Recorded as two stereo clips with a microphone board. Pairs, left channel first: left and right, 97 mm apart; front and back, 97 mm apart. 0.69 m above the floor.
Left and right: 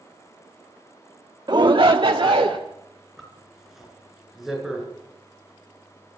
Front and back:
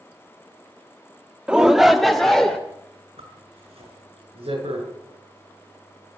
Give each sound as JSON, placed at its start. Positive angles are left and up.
{"t": 1.5, "sound": "a shout", "azimuth_deg": -105, "distance_m": 0.9}
{"t": 3.2, "sound": "a zipper", "azimuth_deg": -175, "distance_m": 7.5}